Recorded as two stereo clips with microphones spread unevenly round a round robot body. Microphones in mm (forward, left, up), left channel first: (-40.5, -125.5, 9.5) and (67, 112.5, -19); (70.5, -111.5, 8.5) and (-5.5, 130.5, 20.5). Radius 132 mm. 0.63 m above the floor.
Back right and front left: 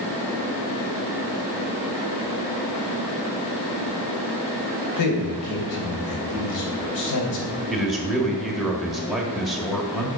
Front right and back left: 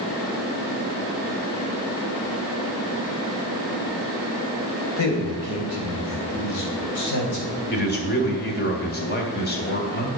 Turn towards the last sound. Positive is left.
turn(degrees=-25)